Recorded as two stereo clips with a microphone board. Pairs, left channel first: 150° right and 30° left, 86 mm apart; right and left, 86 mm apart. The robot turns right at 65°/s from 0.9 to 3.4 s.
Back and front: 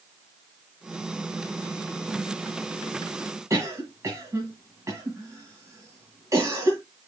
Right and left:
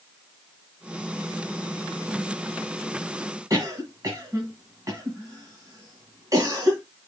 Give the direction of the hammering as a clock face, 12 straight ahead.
No hammering in this recording.